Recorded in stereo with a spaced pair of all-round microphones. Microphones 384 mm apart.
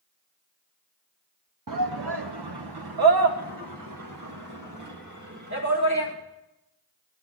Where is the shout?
55° right (ahead or behind), 0.7 m; by 6.1 s 45° right (ahead or behind), 3 m.